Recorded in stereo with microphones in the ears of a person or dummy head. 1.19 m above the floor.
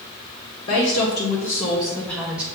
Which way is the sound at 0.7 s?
70° left (ahead or behind).